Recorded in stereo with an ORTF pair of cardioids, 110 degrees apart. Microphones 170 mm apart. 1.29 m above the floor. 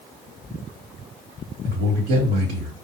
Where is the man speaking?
65° right, 2 m.